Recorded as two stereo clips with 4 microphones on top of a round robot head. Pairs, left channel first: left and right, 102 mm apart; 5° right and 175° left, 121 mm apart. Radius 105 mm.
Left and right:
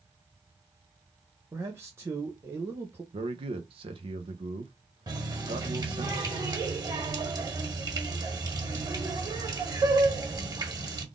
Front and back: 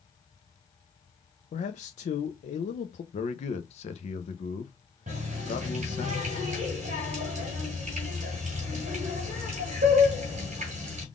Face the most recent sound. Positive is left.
turn(degrees=-145)